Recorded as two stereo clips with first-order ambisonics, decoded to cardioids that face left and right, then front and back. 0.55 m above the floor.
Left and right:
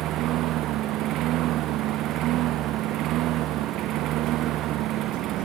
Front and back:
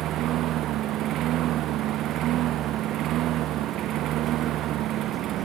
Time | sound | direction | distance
0.0 | a lawn mower | 130° right | ?